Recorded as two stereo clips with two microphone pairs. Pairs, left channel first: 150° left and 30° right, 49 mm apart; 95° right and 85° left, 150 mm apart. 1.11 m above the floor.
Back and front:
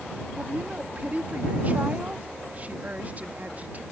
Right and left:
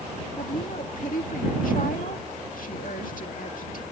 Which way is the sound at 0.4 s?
80° right.